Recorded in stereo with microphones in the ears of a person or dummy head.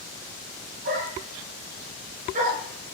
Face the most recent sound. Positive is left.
turn(degrees=-40)  # may be behind; listen again after turning